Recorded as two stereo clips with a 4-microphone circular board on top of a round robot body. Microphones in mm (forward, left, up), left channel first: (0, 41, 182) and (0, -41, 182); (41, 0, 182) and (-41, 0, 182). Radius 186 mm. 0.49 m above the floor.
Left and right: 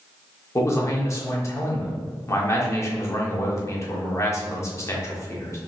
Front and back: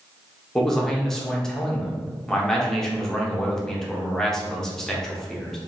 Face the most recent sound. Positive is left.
turn(degrees=80)